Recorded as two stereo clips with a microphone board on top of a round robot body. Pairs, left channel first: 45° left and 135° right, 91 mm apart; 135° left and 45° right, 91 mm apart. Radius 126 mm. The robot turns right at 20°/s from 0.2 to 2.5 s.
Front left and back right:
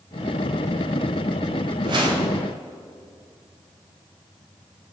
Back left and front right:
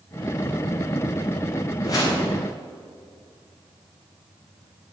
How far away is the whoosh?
About 3.5 m.